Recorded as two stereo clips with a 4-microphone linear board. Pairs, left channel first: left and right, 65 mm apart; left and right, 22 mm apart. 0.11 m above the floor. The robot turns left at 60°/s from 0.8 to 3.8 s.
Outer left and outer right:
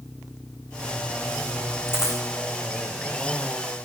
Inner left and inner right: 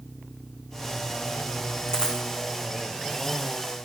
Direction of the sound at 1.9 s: 35° left (ahead or behind).